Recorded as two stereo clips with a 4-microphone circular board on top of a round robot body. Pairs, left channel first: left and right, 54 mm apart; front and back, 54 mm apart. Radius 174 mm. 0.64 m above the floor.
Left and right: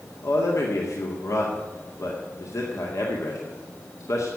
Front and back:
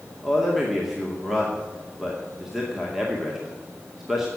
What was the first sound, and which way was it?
A man speaking, 95° left.